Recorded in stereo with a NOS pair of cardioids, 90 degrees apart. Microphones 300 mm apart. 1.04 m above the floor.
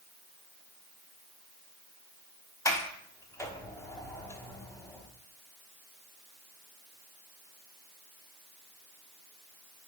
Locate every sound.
2.6 s a sliding door: 10° left, 1.1 m